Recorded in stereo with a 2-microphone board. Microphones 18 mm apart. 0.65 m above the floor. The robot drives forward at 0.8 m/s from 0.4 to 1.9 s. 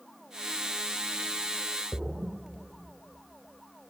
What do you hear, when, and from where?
1.9 s a splash: 80° right, 0.8 m